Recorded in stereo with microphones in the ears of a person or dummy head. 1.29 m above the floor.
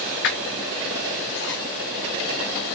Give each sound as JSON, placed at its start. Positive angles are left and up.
{"t": 0.2, "sound": "a squeak", "side_deg": 50, "distance_m": 0.6}